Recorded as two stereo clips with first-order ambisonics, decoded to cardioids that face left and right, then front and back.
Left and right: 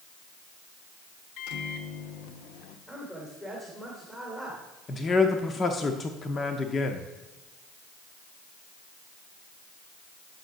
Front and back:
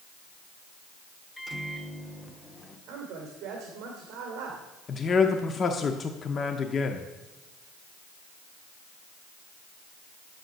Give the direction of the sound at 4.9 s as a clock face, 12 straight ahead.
11 o'clock.